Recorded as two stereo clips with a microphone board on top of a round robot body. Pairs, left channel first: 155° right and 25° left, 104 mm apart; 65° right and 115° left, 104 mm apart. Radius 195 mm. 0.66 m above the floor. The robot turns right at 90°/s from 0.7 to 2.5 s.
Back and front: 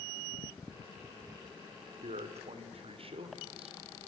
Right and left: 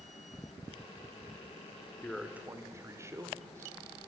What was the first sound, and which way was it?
A man speaking, 5° left.